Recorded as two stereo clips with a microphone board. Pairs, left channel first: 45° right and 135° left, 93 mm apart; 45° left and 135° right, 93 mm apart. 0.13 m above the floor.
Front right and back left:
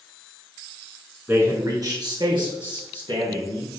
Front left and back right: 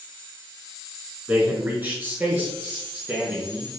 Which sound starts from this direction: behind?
A man speaking, at 1.3 s.